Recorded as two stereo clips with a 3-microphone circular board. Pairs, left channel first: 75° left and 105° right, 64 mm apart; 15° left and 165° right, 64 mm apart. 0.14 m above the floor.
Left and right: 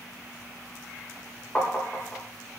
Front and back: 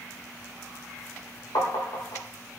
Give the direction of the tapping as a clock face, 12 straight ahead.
12 o'clock.